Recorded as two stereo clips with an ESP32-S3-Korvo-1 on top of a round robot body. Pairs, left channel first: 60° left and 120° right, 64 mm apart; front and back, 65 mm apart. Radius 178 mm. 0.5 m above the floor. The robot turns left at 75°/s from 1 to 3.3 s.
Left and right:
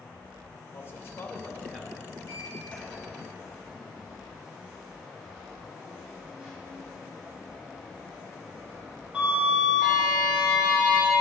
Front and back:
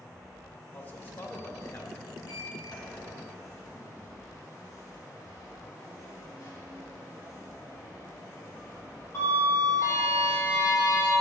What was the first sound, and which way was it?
A man speaking, 50° left.